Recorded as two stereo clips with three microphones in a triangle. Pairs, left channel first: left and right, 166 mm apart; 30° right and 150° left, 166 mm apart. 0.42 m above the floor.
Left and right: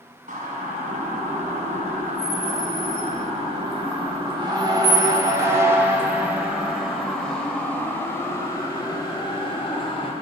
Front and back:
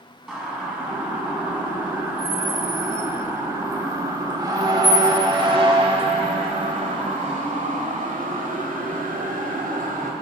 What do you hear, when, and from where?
0.3 s a siren: 120° right, 4.5 m; by 10.1 s 135° left, 3 m